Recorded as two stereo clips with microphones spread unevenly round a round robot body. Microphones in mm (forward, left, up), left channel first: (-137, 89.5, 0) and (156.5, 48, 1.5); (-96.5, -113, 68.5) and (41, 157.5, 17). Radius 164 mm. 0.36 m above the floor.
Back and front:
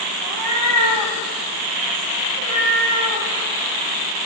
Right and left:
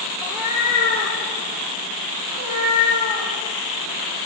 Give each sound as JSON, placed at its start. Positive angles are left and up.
{"t": 0.2, "sound": "a cat meowing", "azimuth_deg": -25, "distance_m": 1.6}